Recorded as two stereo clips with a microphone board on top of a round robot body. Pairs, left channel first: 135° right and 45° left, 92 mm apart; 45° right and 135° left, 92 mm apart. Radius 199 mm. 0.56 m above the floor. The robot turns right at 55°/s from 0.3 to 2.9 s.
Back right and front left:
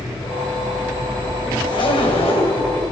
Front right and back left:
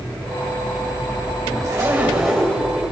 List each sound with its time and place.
1.6 s a zipper: 170° right, 2.5 m; by 2.7 s 110° right, 2.5 m